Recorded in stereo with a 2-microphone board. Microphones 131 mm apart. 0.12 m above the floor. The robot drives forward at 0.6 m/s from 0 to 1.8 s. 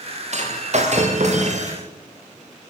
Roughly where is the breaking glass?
Right.